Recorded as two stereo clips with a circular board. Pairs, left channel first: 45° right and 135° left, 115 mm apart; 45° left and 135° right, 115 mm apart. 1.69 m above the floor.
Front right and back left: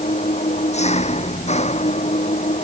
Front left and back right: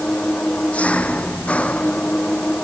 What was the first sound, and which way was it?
An engine running, 35° right.